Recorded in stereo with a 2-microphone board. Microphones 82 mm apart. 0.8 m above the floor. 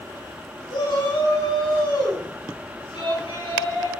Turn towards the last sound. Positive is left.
turn(degrees=85)